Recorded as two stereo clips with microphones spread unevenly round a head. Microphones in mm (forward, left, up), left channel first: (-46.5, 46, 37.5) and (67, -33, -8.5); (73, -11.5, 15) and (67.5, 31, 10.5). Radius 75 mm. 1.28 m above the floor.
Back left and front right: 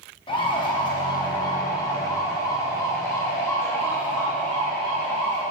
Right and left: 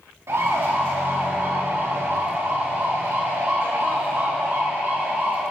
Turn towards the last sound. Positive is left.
turn(degrees=60)